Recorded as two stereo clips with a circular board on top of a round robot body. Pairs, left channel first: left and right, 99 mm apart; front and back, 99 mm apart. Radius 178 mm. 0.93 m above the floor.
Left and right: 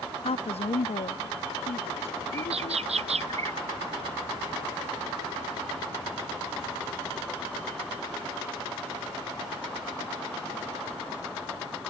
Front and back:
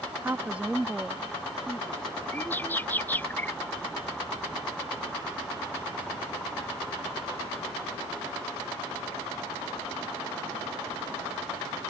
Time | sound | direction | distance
0.2 | a woman speaking | 110° left | ?
2.3 | a bird | 75° right | ?